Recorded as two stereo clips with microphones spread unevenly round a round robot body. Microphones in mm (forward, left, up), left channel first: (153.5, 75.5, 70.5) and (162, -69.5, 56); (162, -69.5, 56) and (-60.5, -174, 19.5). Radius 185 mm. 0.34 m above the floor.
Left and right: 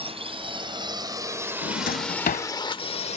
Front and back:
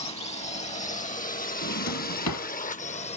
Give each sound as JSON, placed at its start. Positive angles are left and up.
{"t": 0.0, "sound": "a drone", "azimuth_deg": -45}
{"t": 1.6, "sound": "a drawer", "azimuth_deg": 70}